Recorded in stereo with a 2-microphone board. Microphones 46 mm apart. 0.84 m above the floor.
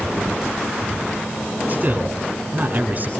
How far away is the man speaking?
About 9.5 m.